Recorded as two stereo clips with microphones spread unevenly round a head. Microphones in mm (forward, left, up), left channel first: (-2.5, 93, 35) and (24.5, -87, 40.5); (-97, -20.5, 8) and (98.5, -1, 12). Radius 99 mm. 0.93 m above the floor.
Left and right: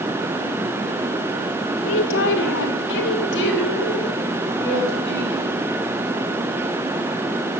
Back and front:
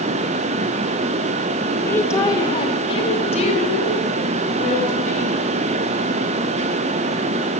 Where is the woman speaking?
105° left, 1.7 m; by 5.5 s 130° left, 6.5 m.